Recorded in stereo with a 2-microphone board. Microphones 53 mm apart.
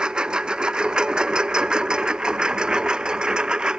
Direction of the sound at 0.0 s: 15° right (ahead or behind).